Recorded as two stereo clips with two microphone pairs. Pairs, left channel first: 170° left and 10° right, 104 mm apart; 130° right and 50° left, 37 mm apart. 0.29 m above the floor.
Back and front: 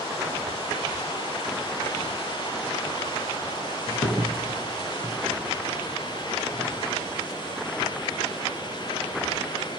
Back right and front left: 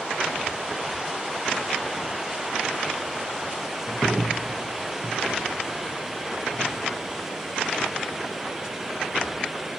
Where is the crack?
155° left, 2.5 m.